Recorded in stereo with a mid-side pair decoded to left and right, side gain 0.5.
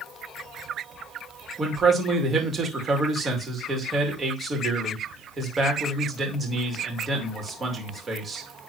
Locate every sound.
1.6 s a man speaking: 35° right, 2.5 m